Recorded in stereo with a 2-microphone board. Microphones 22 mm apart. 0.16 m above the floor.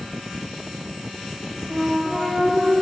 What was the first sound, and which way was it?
A flute, 25° right (ahead or behind).